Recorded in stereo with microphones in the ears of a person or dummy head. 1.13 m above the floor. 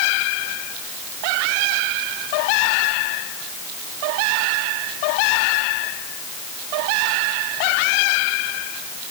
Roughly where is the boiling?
No boiling in this recording.